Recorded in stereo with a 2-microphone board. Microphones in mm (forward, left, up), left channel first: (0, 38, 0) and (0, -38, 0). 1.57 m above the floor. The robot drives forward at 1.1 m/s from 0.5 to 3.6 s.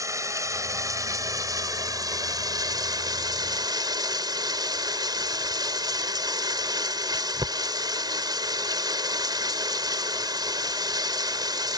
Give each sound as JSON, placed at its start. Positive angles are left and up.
{"t": 0.0, "sound": "running water", "side_deg": -50}